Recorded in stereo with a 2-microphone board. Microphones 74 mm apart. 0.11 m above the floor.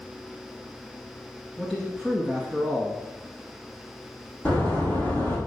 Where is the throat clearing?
I don't hear throat clearing.